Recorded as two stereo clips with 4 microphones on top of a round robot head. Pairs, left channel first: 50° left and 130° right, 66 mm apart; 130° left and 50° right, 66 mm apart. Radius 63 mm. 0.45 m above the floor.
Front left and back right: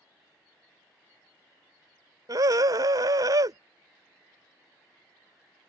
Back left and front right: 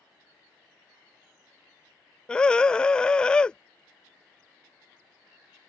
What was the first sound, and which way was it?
A scream, 155° right.